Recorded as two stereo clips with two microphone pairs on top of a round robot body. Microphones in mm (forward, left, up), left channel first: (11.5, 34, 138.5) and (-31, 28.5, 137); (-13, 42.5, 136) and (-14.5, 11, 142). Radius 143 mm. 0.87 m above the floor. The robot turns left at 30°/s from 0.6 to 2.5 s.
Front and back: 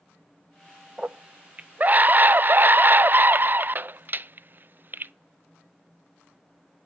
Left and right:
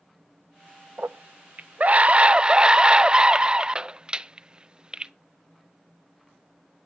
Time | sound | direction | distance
1.0 | a scream | 115° right | 0.5 m